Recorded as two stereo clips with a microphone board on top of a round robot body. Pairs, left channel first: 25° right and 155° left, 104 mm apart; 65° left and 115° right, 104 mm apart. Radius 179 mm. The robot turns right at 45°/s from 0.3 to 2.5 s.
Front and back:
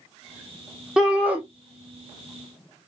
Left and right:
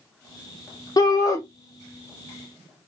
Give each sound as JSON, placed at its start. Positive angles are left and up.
{"t": 1.0, "sound": "a shout", "azimuth_deg": 75, "distance_m": 1.0}